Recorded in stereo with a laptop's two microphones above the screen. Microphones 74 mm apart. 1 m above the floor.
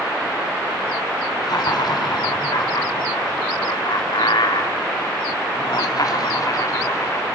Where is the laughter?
65° left (ahead or behind), 3 m; by 7.2 s 40° left (ahead or behind), 2.5 m.